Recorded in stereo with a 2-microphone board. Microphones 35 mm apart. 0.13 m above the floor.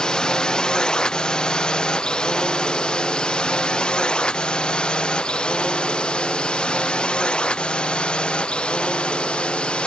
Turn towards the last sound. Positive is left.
turn(degrees=30)  # may be behind; listen again after turning